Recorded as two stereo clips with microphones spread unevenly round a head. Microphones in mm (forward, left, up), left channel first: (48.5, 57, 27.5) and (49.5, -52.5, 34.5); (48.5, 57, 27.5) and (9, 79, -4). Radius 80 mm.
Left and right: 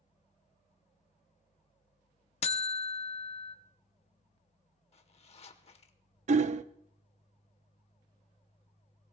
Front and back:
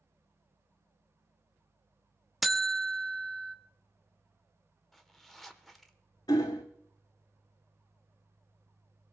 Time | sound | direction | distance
2.4 | a buzzer | 65° left | 0.8 m
4.9 | a zipper | 70° left | 1.1 m
6.3 | hammering | 75° right | 0.5 m